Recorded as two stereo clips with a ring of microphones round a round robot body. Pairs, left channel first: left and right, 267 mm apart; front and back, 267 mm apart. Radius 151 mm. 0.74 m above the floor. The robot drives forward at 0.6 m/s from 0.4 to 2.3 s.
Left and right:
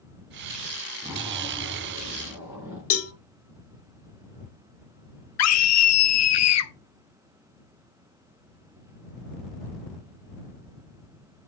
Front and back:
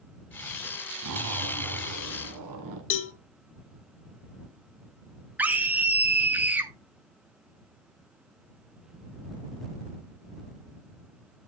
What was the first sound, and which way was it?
A zipper, 170° right.